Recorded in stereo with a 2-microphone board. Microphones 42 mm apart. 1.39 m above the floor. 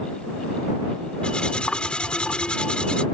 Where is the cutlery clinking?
25° left (ahead or behind).